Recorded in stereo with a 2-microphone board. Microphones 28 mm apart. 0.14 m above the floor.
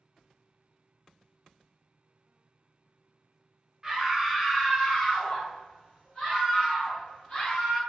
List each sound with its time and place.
3.8 s a scream: 20° right (ahead or behind), 1.2 m; by 7.8 s 40° left (ahead or behind), 2 m